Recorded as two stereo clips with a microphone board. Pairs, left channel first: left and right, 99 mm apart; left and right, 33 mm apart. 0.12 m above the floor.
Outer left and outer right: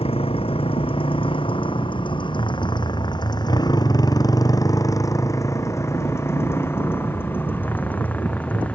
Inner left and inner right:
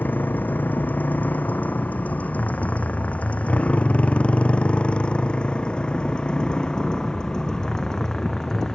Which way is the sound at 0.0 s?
70° left (ahead or behind).